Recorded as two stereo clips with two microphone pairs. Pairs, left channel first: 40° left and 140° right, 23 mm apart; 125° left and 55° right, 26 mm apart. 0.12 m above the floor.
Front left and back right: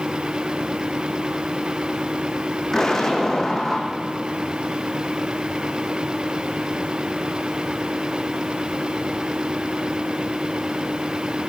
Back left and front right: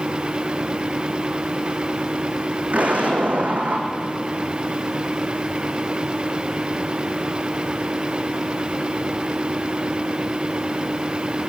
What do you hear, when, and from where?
2.7 s an explosion: 30° right, 3 m